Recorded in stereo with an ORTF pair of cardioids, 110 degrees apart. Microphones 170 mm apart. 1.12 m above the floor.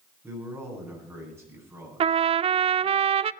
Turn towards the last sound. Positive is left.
turn(degrees=-35)